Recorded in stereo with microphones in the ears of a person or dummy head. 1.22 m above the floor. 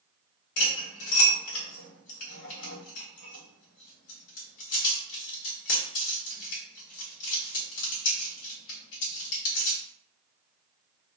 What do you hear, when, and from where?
0.6 s cutlery clinking: 75° left (ahead or behind), 1.1 m